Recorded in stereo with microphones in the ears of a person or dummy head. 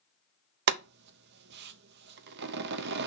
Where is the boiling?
65° right (ahead or behind), 0.6 m.